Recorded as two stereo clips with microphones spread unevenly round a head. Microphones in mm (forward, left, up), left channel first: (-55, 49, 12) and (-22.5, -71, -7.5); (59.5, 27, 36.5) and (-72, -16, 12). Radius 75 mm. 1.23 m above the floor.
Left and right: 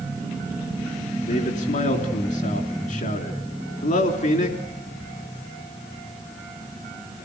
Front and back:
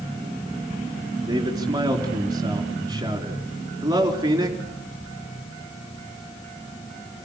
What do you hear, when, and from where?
1.3 s a man speaking: 135° left, 3.5 m